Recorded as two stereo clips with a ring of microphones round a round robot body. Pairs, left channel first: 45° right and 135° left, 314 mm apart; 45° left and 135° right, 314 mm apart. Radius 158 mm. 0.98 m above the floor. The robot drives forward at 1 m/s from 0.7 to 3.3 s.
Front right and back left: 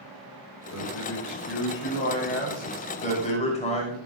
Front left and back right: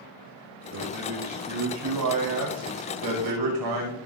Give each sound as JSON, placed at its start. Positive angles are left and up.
{"t": 0.7, "sound": "a man speaking", "azimuth_deg": -90, "distance_m": 5.0}